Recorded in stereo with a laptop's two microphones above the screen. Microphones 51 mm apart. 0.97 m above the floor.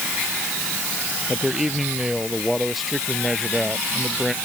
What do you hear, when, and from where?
1.3 s a man speaking: 5° right (ahead or behind); by 4.3 s 5° left (ahead or behind)